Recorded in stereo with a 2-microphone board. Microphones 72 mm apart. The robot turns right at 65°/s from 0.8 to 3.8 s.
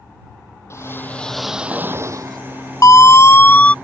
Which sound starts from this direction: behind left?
A whoosh, at 0.7 s.